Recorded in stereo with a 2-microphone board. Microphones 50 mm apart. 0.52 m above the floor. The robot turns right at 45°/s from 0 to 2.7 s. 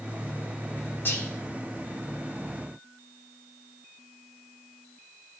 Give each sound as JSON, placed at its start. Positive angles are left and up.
{"t": 1.1, "sound": "whispering", "side_deg": 45, "distance_m": 1.3}